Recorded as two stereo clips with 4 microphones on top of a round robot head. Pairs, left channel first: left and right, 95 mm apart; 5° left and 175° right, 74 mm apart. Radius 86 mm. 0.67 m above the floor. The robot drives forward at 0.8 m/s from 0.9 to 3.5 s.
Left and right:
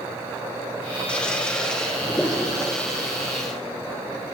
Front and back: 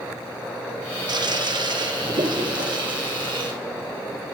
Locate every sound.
1.1 s a toilet flushing: 170° left, 1.4 m; by 3.5 s 175° left, 3.5 m